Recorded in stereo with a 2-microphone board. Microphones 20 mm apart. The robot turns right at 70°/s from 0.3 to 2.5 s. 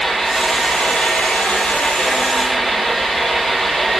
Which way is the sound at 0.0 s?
15° left.